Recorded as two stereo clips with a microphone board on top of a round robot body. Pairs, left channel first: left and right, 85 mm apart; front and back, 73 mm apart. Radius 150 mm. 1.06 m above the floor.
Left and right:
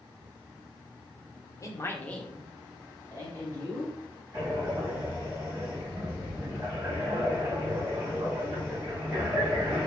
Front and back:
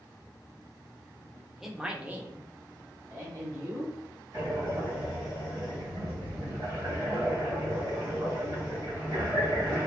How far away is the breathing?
About 1.6 m.